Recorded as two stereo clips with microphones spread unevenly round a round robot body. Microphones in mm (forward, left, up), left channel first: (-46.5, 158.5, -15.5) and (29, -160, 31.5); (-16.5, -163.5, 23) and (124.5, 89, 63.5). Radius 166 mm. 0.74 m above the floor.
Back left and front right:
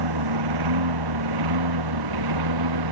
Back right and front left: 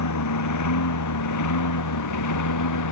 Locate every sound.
0.0 s a lawn mower: 95° right; by 2.9 s 100° right